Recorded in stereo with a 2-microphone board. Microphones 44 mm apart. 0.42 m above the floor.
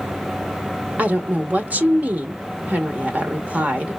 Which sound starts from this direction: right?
A woman speaking, at 1.0 s.